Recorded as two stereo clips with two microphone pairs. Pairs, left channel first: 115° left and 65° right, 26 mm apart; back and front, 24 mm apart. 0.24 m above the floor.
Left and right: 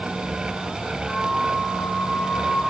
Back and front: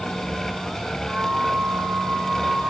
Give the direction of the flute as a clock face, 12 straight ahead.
10 o'clock.